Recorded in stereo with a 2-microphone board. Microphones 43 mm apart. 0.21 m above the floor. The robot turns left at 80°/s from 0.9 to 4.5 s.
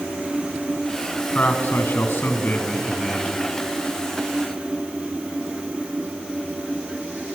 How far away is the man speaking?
About 1.7 m.